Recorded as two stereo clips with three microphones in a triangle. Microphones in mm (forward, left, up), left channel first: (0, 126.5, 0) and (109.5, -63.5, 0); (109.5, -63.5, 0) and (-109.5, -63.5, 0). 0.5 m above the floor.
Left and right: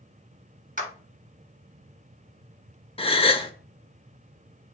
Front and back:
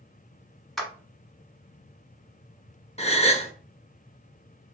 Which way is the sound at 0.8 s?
90° right.